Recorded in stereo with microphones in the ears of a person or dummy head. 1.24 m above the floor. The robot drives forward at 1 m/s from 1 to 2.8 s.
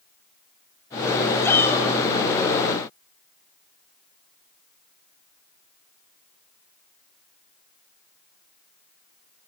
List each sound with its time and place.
1.4 s a shout: 15° left (ahead or behind), 7.5 m